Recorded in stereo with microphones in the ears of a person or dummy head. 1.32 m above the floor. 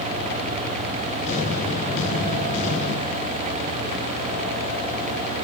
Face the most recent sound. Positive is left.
turn(degrees=45)  # may be behind; listen again after turning